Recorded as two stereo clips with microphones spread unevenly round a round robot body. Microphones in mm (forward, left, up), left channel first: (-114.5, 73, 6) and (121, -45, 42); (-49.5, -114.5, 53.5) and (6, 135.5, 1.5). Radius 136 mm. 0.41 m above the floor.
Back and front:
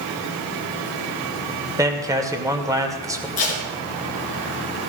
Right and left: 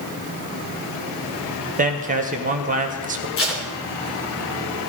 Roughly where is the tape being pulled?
Behind right.